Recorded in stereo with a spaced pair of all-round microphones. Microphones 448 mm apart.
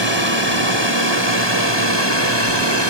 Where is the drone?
70° left (ahead or behind).